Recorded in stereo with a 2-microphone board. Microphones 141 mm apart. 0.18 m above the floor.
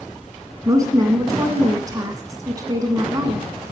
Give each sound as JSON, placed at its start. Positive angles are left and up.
{"t": 0.7, "sound": "a woman speaking", "side_deg": -25, "distance_m": 1.5}